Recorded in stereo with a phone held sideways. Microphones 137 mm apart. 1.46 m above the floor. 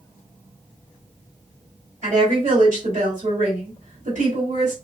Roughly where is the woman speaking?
Right.